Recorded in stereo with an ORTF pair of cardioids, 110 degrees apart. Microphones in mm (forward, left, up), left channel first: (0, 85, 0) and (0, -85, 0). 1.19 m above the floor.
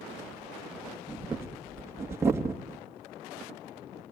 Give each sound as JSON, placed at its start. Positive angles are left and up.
{"t": 0.2, "sound": "breathing", "azimuth_deg": -15, "distance_m": 2.5}